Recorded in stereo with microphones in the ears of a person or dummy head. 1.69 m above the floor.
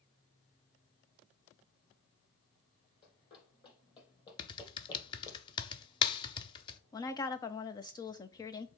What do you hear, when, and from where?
3.0 s running footsteps: 30° left (ahead or behind), 4 m; by 5.4 s 25° left (ahead or behind), 3 m
4.4 s typing on a keyboard: 30° left (ahead or behind), 0.8 m
6.9 s a woman speaking: 20° left (ahead or behind), 0.8 m